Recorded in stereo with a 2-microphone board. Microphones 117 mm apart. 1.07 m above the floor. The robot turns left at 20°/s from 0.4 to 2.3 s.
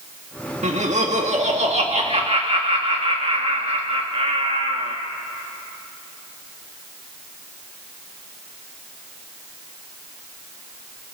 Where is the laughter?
90° right, 1.6 m; by 5.0 s 120° right, 1.6 m.